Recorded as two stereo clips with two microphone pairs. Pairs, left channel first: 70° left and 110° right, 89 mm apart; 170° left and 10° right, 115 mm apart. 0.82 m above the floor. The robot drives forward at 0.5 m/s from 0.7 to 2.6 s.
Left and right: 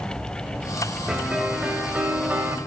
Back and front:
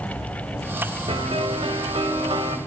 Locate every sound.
1.1 s a piano: 30° right, 2.5 m; by 2.6 s 45° right, 1.8 m